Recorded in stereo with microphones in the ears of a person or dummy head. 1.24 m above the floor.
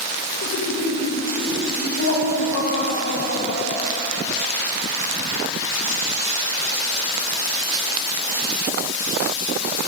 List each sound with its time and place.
0.4 s laughter: 60° left (ahead or behind), 2.0 m